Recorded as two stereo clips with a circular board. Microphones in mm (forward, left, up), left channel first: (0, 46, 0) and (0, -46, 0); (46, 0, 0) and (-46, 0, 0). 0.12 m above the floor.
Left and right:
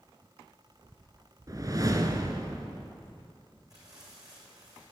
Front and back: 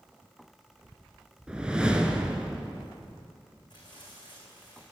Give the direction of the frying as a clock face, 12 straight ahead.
1 o'clock.